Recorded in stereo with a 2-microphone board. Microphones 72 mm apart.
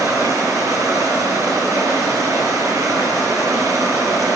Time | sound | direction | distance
0.0 | running water | 45° right (ahead or behind) | 5.5 m